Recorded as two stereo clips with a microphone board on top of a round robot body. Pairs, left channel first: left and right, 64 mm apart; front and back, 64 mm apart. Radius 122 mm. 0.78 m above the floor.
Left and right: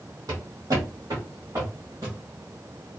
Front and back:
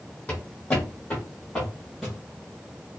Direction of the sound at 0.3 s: 70° right.